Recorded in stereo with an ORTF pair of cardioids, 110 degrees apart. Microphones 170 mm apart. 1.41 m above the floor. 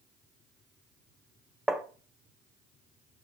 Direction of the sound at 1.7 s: Straight ahead.